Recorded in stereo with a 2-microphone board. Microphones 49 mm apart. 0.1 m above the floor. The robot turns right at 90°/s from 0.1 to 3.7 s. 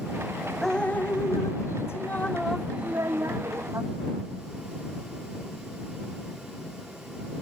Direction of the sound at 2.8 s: 115° right.